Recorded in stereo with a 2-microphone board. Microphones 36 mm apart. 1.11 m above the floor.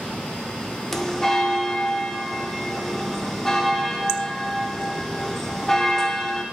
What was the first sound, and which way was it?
A bell, 15° left (ahead or behind).